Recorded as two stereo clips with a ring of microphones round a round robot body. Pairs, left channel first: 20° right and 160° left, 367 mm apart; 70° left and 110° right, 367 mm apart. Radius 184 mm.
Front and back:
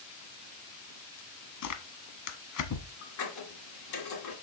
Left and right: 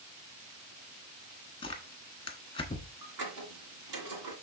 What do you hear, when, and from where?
1.6 s tearing paper: 5° right, 1.1 m
3.0 s a squeak: 70° right, 2.5 m